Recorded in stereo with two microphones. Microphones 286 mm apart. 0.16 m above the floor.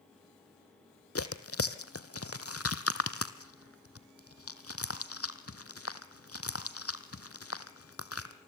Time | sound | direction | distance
1.1 | tearing paper | 55° left (ahead or behind) | 1.2 m